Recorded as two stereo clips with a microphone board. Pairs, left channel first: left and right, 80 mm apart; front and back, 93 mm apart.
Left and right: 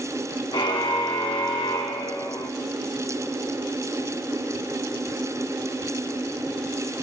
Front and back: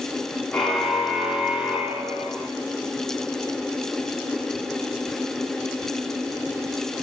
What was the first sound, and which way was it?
A car horn, 85° left.